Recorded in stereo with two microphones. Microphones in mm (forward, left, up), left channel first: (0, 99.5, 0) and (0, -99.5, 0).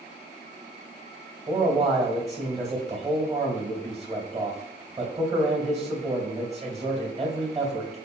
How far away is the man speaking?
About 2.5 m.